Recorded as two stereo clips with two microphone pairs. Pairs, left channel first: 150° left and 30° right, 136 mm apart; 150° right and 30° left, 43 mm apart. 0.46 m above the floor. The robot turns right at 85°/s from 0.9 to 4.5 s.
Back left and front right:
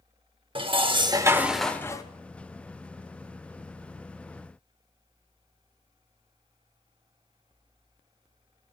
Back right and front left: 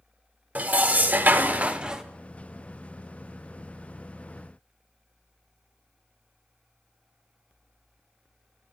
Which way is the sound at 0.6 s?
Straight ahead.